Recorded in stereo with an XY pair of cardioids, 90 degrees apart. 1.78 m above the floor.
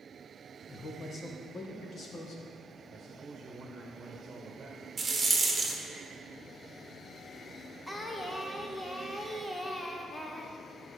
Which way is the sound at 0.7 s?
35° left.